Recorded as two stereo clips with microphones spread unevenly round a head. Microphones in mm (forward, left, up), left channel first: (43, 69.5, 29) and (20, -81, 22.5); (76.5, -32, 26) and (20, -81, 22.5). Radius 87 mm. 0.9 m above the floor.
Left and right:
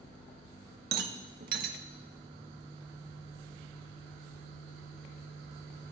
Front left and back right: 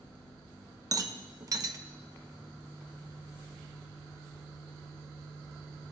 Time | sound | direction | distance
0.9 | a rattle | 110° right | 0.8 m